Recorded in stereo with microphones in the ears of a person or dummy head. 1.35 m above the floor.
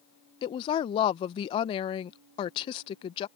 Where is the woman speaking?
25° left (ahead or behind).